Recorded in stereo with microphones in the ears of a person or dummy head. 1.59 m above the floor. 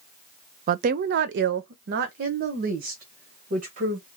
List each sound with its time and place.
0.7 s a woman speaking: 45° right (ahead or behind), 0.5 m; by 4.1 s 50° right (ahead or behind), 2.0 m